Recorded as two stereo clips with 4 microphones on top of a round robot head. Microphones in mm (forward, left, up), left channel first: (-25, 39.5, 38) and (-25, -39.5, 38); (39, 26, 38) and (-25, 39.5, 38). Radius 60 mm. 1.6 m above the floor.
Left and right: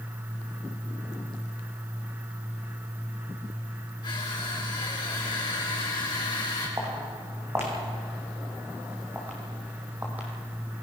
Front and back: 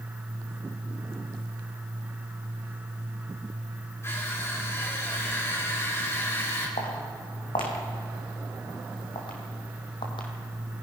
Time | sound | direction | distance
4.0 | crushing | 40° left | 5.5 m
6.8 | footsteps | 25° right | 5 m